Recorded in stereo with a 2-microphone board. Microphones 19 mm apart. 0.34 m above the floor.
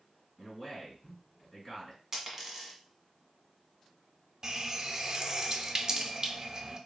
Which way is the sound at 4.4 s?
35° right (ahead or behind).